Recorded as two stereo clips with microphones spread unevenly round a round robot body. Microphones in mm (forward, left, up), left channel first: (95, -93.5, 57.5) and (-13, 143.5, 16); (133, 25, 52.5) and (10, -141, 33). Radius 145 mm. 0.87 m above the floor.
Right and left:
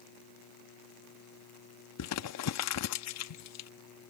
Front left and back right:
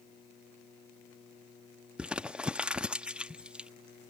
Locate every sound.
2.0 s crumpling: 40° right